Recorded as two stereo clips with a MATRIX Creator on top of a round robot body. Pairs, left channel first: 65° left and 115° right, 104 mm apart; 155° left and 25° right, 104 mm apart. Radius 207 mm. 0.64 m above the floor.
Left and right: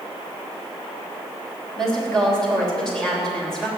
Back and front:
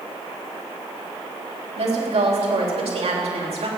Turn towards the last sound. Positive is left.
turn(degrees=-15)